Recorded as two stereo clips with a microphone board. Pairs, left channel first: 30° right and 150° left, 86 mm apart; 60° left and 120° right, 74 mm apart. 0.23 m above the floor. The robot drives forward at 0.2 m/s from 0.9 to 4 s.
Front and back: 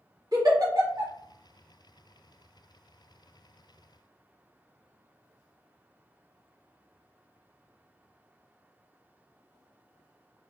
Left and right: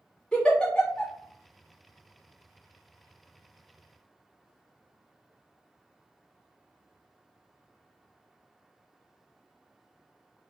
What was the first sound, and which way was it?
A giggle, 135° left.